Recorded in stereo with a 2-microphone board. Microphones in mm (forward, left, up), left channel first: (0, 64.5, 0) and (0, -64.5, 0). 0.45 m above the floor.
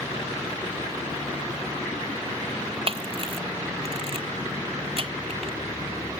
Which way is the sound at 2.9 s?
45° right (ahead or behind).